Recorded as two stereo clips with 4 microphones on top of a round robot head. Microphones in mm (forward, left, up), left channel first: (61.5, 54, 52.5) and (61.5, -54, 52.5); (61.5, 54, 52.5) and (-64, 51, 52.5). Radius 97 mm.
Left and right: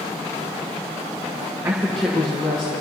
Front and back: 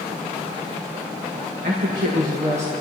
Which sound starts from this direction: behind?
A woman speaking, at 1.6 s.